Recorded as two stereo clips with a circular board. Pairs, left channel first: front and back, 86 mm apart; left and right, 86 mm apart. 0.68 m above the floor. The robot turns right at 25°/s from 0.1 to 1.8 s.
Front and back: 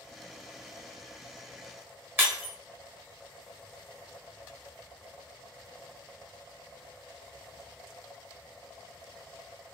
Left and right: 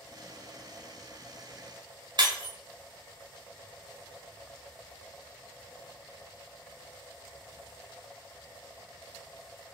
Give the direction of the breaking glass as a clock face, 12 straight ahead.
4 o'clock.